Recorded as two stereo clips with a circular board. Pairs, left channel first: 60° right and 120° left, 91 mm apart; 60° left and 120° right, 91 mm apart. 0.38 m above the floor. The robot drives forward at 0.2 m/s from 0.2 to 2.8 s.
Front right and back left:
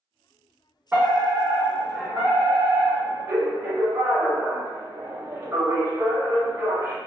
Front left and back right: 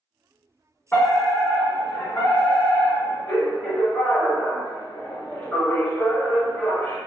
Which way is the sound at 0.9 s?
85° left.